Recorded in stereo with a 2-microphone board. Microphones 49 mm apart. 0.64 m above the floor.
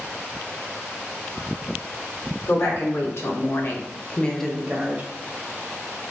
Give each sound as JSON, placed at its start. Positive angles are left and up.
{"t": 2.5, "sound": "a woman speaking", "side_deg": 60, "distance_m": 1.9}